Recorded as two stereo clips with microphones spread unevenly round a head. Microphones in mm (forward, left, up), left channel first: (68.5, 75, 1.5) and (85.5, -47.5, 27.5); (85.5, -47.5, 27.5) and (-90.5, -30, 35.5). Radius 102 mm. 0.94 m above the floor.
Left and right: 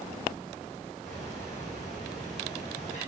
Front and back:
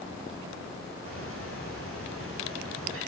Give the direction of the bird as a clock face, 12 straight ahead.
7 o'clock.